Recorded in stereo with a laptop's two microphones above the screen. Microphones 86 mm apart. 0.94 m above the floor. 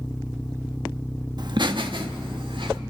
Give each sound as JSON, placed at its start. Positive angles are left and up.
{"t": 1.4, "sound": "laughter", "side_deg": -55, "distance_m": 1.1}